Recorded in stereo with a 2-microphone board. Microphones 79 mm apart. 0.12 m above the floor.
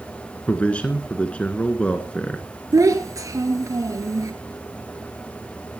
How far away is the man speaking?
About 1.3 m.